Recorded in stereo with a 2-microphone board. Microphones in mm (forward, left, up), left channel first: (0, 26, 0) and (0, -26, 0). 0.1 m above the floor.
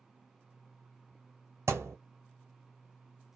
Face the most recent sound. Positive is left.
turn(degrees=-75)  # may be behind; listen again after turning